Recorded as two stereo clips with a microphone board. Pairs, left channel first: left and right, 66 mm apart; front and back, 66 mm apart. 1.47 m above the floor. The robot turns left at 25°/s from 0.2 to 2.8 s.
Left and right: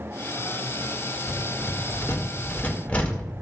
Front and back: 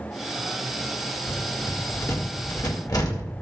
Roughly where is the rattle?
Ahead left.